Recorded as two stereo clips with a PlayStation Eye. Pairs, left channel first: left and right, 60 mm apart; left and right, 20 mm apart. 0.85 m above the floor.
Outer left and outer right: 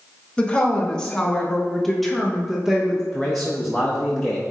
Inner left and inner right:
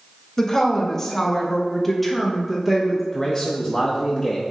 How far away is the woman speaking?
About 1.4 m.